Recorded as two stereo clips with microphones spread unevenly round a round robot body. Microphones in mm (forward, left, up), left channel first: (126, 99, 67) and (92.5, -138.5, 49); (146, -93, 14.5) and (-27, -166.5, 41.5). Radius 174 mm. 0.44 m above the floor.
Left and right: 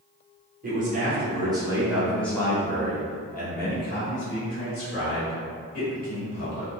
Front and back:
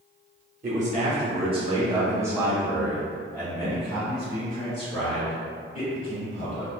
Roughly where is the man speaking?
Behind right.